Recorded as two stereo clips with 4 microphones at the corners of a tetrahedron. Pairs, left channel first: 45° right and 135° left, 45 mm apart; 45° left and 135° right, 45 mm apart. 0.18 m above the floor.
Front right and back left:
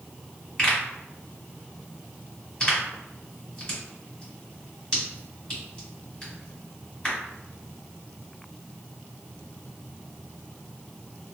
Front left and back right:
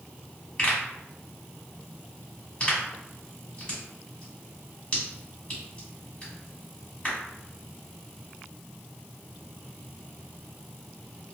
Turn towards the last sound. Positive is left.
turn(degrees=10)